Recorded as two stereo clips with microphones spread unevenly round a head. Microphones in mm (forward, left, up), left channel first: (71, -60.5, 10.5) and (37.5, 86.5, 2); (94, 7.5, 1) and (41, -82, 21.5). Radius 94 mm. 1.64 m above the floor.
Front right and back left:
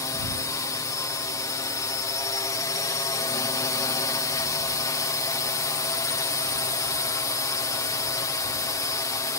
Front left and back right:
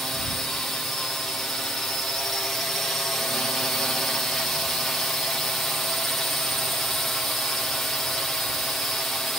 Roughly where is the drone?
Ahead.